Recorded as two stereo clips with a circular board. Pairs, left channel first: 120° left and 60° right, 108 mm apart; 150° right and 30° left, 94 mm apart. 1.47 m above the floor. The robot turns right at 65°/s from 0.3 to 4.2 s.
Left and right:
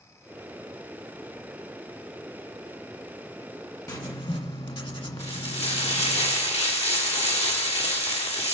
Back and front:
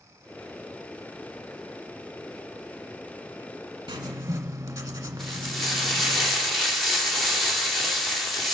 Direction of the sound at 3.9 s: 65° left.